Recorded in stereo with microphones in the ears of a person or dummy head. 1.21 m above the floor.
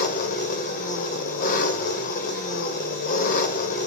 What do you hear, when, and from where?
0.0 s an engine running: 50° left (ahead or behind), 2 m